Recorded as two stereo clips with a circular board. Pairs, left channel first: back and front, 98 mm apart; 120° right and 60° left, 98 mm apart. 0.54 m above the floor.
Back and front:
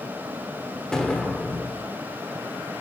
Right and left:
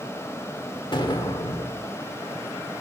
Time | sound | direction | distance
0.9 | an explosion | 100° right | 1.4 m